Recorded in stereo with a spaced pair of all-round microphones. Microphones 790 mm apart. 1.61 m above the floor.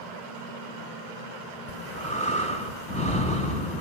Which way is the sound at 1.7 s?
10° left (ahead or behind).